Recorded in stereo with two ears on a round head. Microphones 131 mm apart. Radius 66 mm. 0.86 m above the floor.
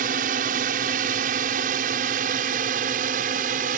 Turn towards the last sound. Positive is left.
turn(degrees=-60)  # may be behind; listen again after turning